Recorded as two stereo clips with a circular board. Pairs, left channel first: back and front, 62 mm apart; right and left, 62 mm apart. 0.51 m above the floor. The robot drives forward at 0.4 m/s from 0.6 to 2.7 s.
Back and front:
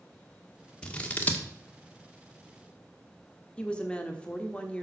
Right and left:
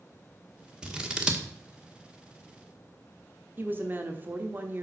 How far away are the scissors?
About 1.2 m.